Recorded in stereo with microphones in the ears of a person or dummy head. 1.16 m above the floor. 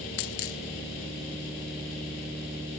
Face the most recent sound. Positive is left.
turn(degrees=50)  # may be behind; listen again after turning